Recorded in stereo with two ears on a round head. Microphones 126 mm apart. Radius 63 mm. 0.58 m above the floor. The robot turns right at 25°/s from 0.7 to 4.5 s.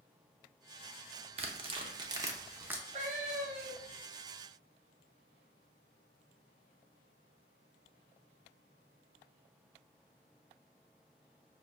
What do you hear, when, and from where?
1.4 s tearing paper: 45° right (ahead or behind), 0.6 m; by 2.8 s 15° right (ahead or behind), 0.6 m
2.9 s a cat meowing: 50° right (ahead or behind), 0.9 m; by 4.1 s 75° right (ahead or behind), 0.9 m